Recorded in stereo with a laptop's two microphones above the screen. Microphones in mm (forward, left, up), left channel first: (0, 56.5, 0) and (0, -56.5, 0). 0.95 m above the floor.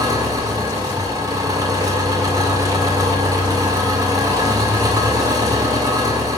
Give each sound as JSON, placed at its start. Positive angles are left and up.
{"t": 0.0, "sound": "an engine running", "side_deg": -35, "distance_m": 2.0}